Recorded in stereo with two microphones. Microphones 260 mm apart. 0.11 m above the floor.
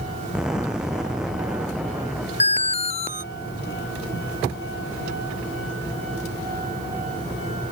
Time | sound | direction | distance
0.3 | an explosion | 5° right (ahead or behind) | ?
2.4 | an alarm | 25° left (ahead or behind) | ?